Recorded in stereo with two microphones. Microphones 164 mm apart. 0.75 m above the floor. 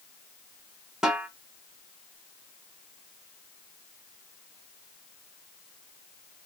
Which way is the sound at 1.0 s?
5° right (ahead or behind).